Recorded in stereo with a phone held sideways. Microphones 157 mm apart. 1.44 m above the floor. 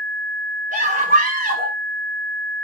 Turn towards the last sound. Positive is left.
turn(degrees=-65)  # may be behind; listen again after turning